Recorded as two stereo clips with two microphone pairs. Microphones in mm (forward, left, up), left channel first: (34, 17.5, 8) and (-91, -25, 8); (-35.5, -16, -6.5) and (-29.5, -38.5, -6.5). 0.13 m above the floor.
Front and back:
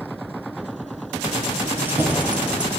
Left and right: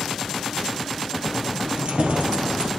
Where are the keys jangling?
95° right, 2 m; by 2.7 s 80° right, 2.5 m.